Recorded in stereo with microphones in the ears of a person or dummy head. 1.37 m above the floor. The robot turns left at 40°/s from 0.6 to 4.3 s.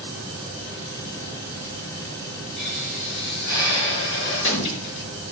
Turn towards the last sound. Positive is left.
turn(degrees=70)